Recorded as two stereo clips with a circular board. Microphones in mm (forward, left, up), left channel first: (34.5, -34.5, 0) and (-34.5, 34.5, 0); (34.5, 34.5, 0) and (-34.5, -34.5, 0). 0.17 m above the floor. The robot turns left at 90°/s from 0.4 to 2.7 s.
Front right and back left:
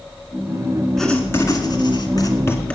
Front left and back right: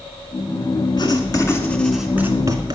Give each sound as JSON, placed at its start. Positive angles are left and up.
{"t": 1.0, "sound": "writing", "azimuth_deg": 40, "distance_m": 2.0}